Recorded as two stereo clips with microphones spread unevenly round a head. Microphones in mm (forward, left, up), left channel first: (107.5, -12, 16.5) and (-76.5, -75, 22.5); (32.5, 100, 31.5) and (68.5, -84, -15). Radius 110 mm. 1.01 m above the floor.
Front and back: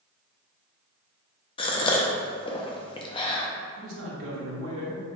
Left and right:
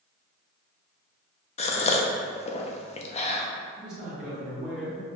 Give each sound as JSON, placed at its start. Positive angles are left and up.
{"t": 1.6, "sound": "a gasp", "azimuth_deg": 50, "distance_m": 0.6}
{"t": 3.8, "sound": "a man speaking", "azimuth_deg": -160, "distance_m": 1.4}